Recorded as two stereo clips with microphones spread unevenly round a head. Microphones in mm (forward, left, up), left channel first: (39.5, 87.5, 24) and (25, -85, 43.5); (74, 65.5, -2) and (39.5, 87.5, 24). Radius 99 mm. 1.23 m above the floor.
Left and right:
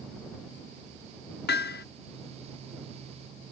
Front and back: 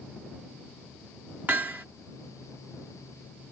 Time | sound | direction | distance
1.5 | hammering | 115° left | ?